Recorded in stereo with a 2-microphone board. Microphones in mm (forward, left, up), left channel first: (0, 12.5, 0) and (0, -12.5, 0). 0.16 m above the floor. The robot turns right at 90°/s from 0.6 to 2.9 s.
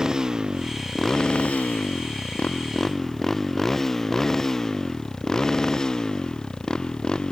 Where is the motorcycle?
20° right (ahead or behind); by 7.3 s 25° left (ahead or behind).